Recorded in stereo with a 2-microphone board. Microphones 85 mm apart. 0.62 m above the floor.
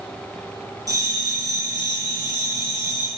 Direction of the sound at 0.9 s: 45° right (ahead or behind).